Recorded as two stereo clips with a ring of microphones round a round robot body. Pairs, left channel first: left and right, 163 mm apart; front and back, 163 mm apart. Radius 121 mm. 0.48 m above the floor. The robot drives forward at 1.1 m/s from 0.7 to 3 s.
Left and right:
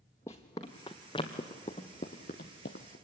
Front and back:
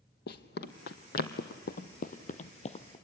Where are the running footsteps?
10° left, 1.2 m; by 3.0 s 50° left, 1.1 m.